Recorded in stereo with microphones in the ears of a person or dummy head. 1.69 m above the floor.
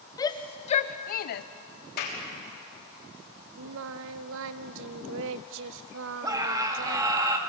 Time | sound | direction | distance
0.2 | a shout | 20° left (ahead or behind) | 0.9 m
2.0 | a clap | 60° left (ahead or behind) | 3.5 m
3.6 | singing | 70° right (ahead or behind) | 0.7 m
6.2 | a scream | 15° right (ahead or behind) | 2.5 m